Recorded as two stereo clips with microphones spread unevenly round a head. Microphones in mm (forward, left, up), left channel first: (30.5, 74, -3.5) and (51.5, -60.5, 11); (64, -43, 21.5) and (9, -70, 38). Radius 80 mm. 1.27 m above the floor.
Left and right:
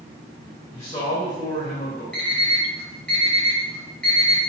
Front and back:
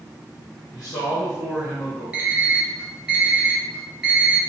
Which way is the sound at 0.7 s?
45° left.